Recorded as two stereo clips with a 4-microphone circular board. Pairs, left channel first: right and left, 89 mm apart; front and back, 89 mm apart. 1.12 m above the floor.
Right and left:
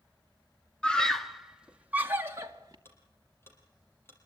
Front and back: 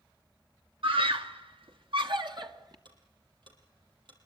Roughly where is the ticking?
Behind right.